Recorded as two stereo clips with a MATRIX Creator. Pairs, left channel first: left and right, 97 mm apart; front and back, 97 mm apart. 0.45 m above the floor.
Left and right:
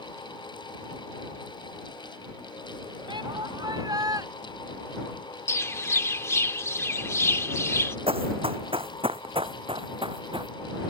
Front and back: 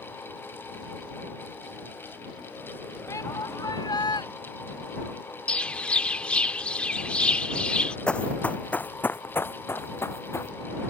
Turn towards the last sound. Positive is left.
turn(degrees=-60)